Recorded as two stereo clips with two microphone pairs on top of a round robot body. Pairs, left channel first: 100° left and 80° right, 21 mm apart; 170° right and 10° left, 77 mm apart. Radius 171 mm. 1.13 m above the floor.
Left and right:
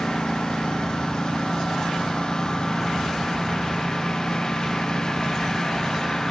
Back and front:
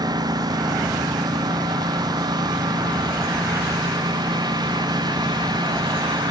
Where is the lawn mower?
45° left; by 6.3 s 35° left.